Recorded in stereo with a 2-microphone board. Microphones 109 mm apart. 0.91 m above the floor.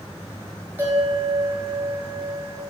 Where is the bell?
15° right (ahead or behind), 4 m.